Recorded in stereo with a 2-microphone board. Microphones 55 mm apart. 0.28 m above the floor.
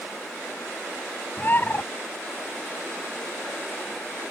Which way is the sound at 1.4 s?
40° left (ahead or behind).